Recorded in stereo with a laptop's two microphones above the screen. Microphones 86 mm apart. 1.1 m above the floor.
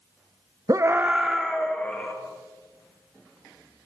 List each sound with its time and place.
0.7 s a scream: 45° right (ahead or behind), 0.6 m; by 2.1 s 15° left (ahead or behind), 1.8 m